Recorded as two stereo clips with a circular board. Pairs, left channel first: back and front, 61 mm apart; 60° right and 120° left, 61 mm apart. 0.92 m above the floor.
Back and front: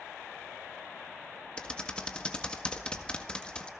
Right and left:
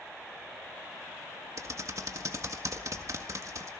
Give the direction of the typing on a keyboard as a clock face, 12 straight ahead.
8 o'clock.